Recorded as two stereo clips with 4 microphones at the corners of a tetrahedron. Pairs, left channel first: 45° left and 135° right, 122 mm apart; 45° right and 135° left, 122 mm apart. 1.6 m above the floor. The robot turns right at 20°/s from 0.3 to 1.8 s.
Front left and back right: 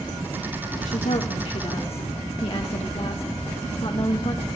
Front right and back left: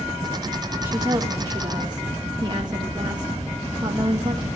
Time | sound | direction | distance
0.8 | a woman speaking | 60° left | 2 m